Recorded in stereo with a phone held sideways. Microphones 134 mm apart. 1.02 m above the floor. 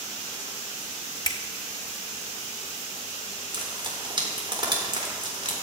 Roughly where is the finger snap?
Left.